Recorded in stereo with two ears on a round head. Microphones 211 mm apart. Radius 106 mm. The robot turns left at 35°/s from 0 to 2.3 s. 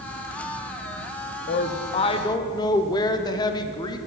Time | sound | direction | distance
1.5 | a woman speaking | 40° left (ahead or behind) | 0.6 m